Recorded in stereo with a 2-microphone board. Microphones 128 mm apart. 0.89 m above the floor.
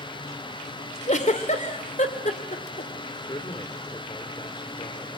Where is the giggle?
70° left (ahead or behind), 2 m.